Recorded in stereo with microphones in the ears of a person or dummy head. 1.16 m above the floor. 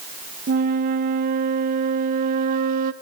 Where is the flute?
55° right (ahead or behind), 1.1 m.